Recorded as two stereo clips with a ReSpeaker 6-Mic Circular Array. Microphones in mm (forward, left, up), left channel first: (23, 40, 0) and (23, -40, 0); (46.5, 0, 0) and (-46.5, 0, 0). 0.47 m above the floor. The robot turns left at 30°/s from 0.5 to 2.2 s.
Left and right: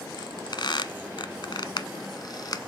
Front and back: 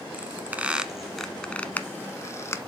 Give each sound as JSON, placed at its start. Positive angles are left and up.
{"t": 0.1, "sound": "a squeak", "azimuth_deg": 110, "distance_m": 0.7}